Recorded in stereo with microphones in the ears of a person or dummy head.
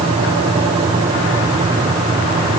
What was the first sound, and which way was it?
Only background noise.